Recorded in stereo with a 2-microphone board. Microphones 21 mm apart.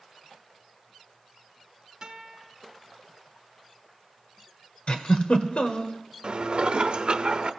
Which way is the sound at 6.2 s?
55° right (ahead or behind).